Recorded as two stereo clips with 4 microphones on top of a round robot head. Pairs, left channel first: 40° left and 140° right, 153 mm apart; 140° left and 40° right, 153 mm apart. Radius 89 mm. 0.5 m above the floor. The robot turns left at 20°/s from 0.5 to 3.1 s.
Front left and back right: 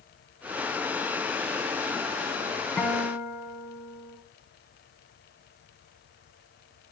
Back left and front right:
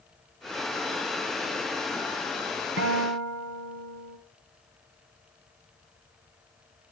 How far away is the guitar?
About 1.2 m.